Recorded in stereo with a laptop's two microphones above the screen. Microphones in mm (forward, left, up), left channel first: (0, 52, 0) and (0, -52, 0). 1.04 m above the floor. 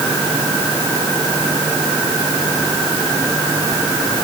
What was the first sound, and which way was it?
Only background noise.